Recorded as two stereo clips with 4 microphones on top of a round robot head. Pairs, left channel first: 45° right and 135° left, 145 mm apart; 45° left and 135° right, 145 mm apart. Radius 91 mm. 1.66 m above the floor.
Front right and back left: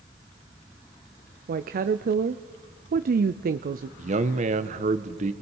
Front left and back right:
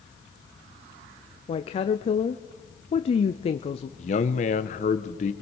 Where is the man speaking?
90° left, 0.9 m.